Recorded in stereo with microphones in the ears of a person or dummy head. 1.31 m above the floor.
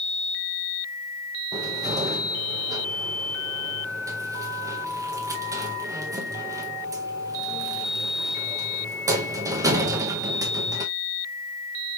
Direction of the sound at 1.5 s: 20° right (ahead or behind).